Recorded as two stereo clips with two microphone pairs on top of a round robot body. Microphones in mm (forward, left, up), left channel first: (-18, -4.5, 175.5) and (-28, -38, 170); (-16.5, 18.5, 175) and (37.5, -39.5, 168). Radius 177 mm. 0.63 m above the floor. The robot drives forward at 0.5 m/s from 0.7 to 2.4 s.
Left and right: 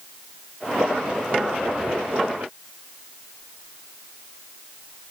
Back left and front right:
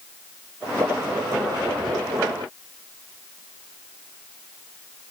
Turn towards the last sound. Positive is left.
No sound to turn to.